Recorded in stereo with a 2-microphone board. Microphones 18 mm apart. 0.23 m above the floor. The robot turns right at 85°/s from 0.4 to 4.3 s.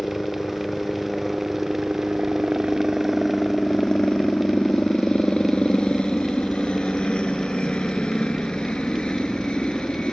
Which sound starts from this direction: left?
A helicopter, at 0.0 s.